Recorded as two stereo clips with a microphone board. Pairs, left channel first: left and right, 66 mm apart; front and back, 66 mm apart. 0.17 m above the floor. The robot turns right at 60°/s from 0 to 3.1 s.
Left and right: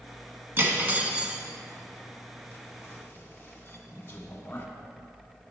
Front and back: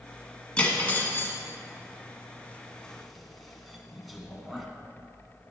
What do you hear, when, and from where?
0.6 s cutlery clinking: 65° right, 1.0 m; by 4.7 s 90° left, 1.0 m